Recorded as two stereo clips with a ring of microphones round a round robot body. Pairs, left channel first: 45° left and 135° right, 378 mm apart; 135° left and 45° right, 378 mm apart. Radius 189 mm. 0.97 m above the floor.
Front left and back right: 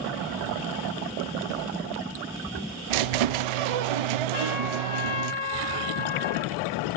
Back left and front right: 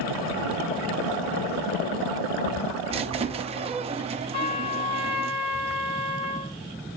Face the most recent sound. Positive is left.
turn(degrees=60)